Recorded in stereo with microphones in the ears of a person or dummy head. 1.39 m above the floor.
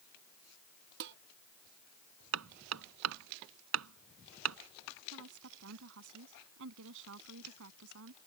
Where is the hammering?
80° right.